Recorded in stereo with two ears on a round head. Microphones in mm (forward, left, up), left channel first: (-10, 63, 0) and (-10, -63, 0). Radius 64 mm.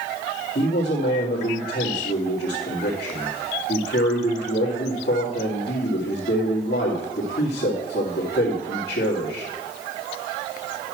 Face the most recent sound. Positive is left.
turn(degrees=85)